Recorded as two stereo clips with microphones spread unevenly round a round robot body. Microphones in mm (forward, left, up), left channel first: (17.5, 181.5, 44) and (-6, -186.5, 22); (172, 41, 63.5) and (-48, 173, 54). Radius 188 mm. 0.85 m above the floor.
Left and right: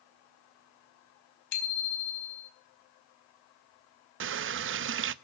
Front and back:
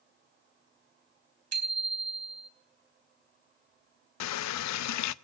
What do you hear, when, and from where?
1.5 s a bicycle bell: 130° left, 4 m
4.2 s a running tap: 40° right, 0.6 m